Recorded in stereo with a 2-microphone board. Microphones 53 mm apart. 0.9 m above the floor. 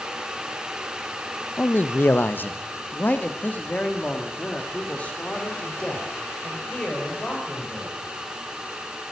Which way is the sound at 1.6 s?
35° left (ahead or behind).